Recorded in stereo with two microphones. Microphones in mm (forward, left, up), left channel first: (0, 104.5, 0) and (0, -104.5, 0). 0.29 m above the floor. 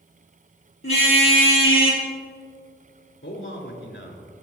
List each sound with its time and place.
0.8 s a car horn: 80° left, 5 m; by 2.0 s 75° left (ahead or behind), 4 m
3.2 s a man speaking: 70° left (ahead or behind), 3.5 m